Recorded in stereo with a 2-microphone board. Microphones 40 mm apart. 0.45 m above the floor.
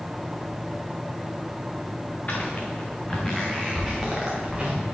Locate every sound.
2.3 s footsteps: 40° left (ahead or behind), 2 m; by 4.8 s 20° right (ahead or behind), 3.5 m